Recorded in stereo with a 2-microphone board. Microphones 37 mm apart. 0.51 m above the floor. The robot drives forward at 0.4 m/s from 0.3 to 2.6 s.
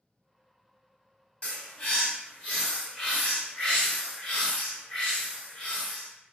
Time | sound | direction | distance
1.4 | a bird | 35° left (ahead or behind) | 0.9 m